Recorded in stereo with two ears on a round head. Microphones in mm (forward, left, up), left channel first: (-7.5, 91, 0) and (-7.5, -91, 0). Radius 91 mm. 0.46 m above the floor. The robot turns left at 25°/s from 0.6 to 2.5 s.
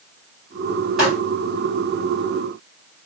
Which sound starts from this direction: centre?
A pop, at 1.0 s.